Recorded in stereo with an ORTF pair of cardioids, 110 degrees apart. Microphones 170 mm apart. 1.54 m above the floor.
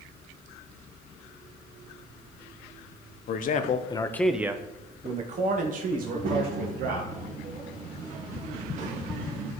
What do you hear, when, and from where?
3.3 s a man speaking: 60° left, 0.9 m; by 7.0 s 65° right, 2 m
6.0 s a child speaking: 50° right, 1.6 m